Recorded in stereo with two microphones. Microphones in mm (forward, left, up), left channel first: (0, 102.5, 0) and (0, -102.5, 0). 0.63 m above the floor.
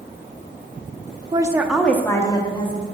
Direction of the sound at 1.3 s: 25° right (ahead or behind).